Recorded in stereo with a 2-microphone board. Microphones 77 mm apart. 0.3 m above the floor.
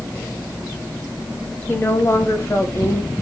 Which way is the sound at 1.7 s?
30° left (ahead or behind).